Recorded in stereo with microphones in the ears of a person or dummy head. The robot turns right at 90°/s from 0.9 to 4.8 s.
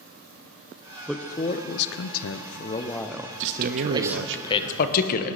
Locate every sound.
1.1 s a man speaking: straight ahead, 0.7 m; by 4.4 s 60° right, 0.7 m
3.4 s a man speaking: 70° right (ahead or behind), 0.9 m; by 5.4 s 50° left (ahead or behind), 0.9 m